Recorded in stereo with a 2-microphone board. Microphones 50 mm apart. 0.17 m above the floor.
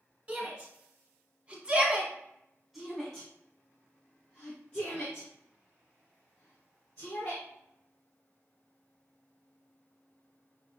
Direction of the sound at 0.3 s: 30° right (ahead or behind).